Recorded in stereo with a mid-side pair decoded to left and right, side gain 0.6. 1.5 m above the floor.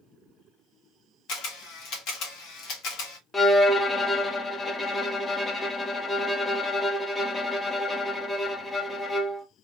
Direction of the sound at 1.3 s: 65° left.